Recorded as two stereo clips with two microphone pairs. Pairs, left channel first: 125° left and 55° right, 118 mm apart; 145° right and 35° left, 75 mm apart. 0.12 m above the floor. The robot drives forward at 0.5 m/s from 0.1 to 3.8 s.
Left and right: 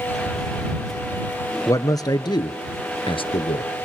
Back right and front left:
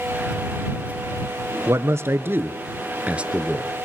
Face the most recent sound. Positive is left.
turn(degrees=120)